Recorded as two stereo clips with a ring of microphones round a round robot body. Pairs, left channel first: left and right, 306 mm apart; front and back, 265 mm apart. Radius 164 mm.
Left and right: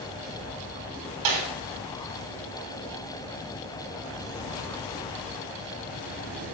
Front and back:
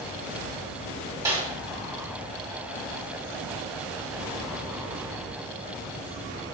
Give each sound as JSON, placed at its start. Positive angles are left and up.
{"t": 1.2, "sound": "a snare drum", "azimuth_deg": -100, "distance_m": 2.5}